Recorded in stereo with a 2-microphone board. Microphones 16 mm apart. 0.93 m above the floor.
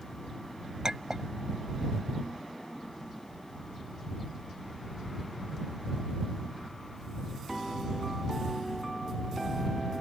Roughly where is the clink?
Right.